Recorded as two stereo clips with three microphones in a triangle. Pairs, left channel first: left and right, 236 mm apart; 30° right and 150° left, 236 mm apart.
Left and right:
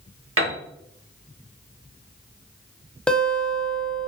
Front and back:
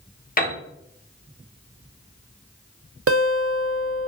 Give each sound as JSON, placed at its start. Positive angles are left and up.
{"t": 0.4, "sound": "a piano", "azimuth_deg": -80, "distance_m": 1.0}
{"t": 3.1, "sound": "a guitar", "azimuth_deg": 175, "distance_m": 0.5}